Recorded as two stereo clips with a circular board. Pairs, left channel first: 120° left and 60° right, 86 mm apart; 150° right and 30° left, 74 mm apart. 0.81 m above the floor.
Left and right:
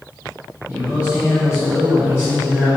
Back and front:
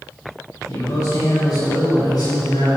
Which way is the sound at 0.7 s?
125° right.